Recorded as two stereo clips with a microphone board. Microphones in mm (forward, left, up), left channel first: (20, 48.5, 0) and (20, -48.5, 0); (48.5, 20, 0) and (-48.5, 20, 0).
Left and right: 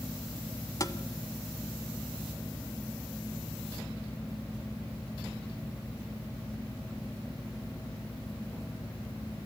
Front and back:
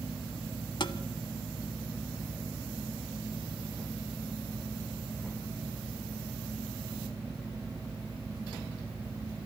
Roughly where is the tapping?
Ahead left.